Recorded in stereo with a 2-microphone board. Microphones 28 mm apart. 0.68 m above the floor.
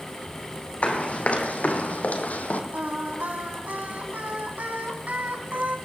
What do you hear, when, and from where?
0.8 s running footsteps: 55° left (ahead or behind), 2.5 m; by 2.6 s 70° left (ahead or behind), 1.8 m
2.7 s singing: 80° right, 2.5 m